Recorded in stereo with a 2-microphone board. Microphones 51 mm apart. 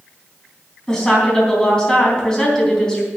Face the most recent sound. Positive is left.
turn(degrees=15)  # may be behind; listen again after turning